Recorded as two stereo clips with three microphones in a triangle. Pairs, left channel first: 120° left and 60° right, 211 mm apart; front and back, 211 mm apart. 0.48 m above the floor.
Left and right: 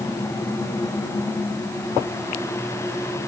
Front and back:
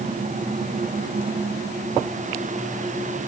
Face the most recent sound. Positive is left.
No sound to turn to.